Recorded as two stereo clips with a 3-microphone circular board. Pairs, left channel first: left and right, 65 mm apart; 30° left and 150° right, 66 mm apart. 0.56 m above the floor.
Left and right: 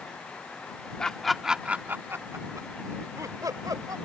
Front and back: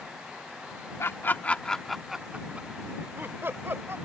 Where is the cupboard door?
I don't hear a cupboard door.